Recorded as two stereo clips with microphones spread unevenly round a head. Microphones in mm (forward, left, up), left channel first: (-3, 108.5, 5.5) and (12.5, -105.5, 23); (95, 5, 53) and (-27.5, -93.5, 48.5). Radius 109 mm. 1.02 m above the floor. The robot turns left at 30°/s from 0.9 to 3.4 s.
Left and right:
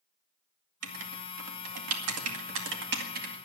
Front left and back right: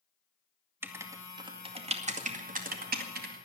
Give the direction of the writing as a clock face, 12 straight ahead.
2 o'clock.